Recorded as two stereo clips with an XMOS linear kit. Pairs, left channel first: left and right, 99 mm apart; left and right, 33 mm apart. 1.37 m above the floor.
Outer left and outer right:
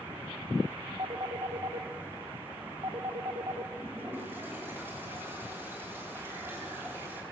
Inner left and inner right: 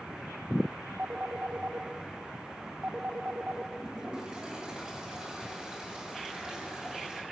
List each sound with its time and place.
1.0 s a phone ringing: 50° right (ahead or behind), 1.7 m
3.8 s a toilet flushing: 25° right (ahead or behind), 9 m